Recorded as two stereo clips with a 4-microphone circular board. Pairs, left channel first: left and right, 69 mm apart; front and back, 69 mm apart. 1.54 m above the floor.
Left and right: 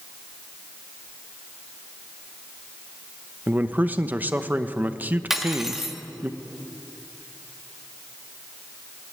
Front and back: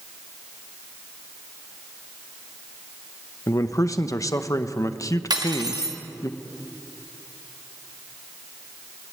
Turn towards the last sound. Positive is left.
turn(degrees=-175)